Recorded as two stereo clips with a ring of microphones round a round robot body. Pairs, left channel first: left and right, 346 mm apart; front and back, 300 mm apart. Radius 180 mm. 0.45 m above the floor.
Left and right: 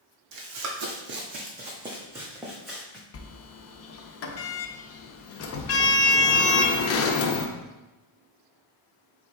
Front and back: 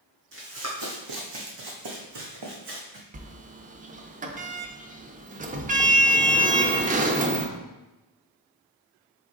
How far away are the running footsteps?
About 1.1 m.